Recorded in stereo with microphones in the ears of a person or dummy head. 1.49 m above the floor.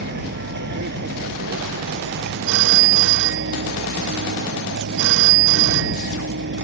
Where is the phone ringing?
70° right (ahead or behind).